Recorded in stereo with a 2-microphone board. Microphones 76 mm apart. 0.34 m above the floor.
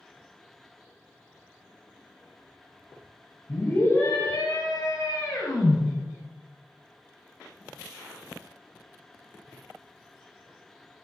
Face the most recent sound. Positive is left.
turn(degrees=65)  # may be behind; listen again after turning